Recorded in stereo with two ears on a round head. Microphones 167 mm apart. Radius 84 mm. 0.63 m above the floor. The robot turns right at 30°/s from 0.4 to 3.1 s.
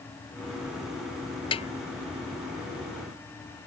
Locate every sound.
1.5 s a snare drum: 30° left (ahead or behind); by 1.7 s 35° left (ahead or behind)